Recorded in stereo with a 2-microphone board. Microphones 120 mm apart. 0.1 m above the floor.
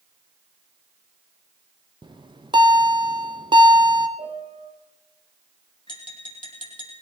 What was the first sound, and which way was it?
A bell, 40° right (ahead or behind).